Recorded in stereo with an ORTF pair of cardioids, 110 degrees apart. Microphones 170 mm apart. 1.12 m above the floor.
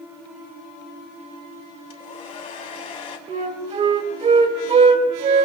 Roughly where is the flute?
Ahead right.